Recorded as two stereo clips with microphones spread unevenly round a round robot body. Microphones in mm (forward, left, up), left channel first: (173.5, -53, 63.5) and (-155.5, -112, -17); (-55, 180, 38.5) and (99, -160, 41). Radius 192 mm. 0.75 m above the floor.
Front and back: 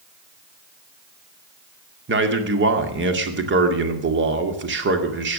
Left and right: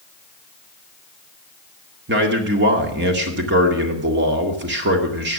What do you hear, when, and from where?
2.1 s a man speaking: 125° right, 2 m